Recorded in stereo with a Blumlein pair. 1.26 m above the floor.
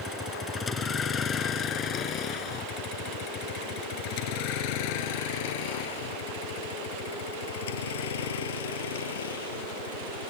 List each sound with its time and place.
0.0 s a vehicle: 15° left; by 10.3 s 65° left